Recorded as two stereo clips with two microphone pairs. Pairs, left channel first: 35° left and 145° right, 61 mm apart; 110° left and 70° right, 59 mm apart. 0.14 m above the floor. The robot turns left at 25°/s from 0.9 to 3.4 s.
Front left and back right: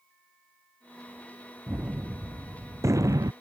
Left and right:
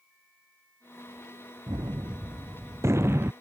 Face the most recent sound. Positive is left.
turn(degrees=-125)